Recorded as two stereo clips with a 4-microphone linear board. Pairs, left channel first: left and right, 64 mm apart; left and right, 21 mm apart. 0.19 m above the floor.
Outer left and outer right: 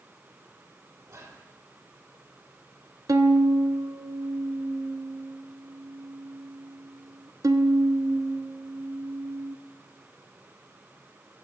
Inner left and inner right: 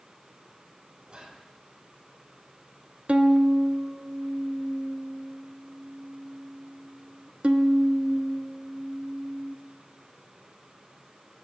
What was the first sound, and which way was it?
Whispering, 55° right (ahead or behind).